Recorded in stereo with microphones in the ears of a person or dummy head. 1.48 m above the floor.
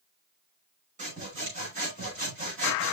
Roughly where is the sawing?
Right.